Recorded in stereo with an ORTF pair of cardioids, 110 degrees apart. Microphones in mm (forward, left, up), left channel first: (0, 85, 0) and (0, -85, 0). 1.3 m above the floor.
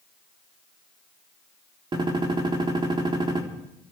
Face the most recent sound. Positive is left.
turn(degrees=-30)